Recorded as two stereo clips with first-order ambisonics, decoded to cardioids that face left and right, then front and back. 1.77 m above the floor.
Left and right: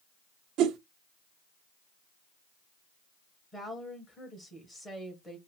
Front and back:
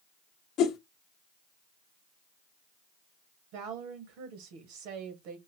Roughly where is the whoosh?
Ahead right.